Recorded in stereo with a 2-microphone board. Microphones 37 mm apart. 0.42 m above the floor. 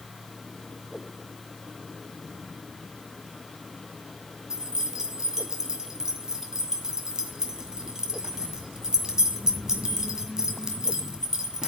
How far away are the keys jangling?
About 2.0 m.